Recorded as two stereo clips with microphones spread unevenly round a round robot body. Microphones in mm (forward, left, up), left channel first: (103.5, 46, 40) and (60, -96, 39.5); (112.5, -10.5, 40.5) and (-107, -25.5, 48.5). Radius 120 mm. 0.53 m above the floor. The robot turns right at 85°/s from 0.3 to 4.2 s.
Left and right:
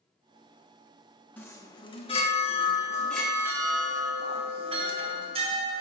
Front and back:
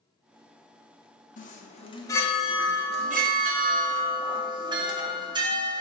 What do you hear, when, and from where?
1.4 s a chime: 5° left, 1.2 m; by 5.8 s 115° right, 1.2 m